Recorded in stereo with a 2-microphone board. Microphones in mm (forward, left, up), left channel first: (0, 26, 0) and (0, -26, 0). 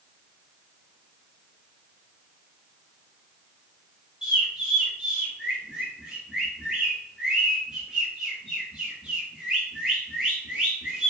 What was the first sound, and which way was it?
A bird, 15° right (ahead or behind).